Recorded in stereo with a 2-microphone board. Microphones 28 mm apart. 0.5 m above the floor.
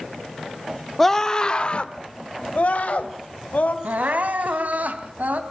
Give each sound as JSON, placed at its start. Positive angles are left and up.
{"t": 1.0, "sound": "a scream", "side_deg": 15, "distance_m": 1.2}
{"t": 3.8, "sound": "crying", "side_deg": -80, "distance_m": 2.5}